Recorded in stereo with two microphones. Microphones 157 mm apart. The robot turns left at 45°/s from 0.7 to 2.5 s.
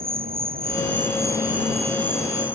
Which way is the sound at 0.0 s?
110° right.